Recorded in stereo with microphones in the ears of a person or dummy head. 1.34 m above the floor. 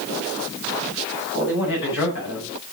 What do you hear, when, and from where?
1.3 s a man speaking: 70° left (ahead or behind), 9.5 m